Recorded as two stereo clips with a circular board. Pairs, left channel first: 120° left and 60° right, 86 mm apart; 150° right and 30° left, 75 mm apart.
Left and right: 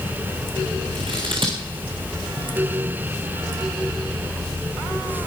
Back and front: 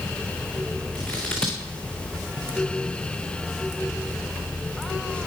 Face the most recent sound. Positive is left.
turn(degrees=-70)